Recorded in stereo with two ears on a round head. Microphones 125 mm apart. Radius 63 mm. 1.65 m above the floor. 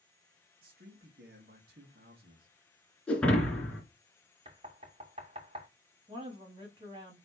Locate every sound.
0.6 s a man speaking: 75° right (ahead or behind), 2.5 m
3.1 s breaking glass: 5° left (ahead or behind), 3 m
4.5 s knocking: 40° right (ahead or behind), 2.5 m
6.1 s a woman speaking: 35° right (ahead or behind), 3 m